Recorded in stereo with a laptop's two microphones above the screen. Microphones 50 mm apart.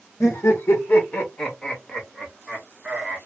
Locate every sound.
0.2 s laughter: 60° left (ahead or behind), 0.9 m; by 3.2 s 20° right (ahead or behind), 1.3 m